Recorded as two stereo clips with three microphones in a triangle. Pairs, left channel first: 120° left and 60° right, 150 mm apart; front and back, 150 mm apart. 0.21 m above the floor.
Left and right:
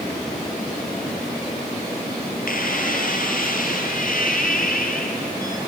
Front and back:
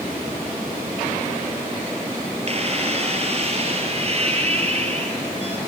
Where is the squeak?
135° left, 2.5 m.